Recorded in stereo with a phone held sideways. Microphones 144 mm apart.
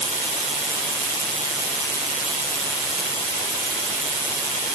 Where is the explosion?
No explosion in this recording.